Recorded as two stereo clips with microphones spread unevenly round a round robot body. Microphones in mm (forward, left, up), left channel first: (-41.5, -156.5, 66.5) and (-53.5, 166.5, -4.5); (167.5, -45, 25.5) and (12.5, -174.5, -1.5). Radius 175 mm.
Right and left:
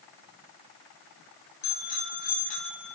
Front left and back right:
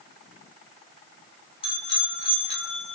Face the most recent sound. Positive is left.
turn(degrees=-15)